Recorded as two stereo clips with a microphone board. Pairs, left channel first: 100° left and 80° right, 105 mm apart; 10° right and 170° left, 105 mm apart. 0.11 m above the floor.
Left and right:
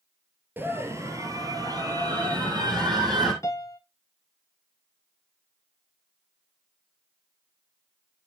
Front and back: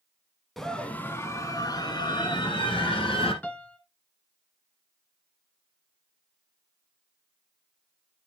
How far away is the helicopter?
I don't hear a helicopter.